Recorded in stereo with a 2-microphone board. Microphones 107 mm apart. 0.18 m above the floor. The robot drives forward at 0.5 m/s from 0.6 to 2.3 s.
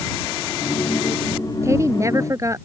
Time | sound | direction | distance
1.6 | a woman speaking | 25° right (ahead or behind) | ?